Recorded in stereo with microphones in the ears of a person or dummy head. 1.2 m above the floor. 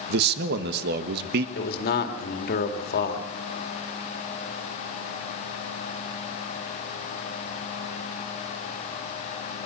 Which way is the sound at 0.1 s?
65° right (ahead or behind).